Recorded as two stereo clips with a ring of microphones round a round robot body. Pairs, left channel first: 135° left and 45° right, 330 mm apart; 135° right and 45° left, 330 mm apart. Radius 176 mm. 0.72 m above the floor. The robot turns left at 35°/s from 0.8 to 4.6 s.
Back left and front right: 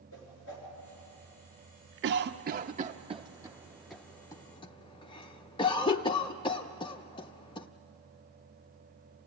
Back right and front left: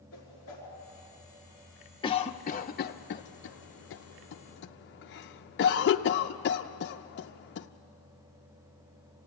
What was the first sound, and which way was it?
A whoosh, straight behind.